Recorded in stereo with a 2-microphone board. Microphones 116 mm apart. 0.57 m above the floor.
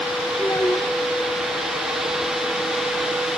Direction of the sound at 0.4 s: 30° left (ahead or behind).